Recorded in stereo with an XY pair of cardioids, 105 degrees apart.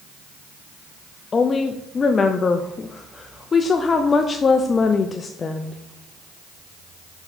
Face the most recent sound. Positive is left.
turn(degrees=35)